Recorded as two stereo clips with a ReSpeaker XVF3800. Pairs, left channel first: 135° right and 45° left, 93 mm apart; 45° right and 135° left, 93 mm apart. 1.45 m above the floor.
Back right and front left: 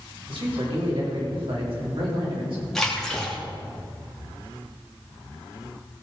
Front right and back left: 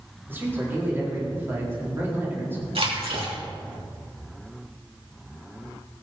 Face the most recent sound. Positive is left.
turn(degrees=140)